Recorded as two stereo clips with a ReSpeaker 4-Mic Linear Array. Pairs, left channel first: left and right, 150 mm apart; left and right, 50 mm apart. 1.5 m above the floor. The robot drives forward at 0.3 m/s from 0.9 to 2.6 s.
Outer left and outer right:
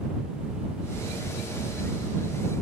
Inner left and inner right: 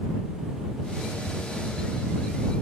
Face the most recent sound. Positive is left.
No sound to turn to.